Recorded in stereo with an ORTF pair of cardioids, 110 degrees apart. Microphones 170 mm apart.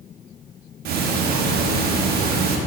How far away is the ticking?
About 1.4 m.